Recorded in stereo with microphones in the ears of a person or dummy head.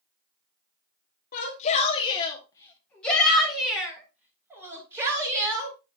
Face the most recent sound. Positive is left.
turn(degrees=-15)  # may be behind; listen again after turning